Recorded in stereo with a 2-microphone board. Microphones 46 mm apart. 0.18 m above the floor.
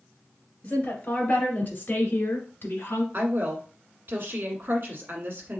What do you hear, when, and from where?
0.6 s a woman speaking: 35° left (ahead or behind), 2.5 m; by 3.0 s 55° left (ahead or behind), 1.7 m
3.1 s a woman speaking: 50° right (ahead or behind), 1.5 m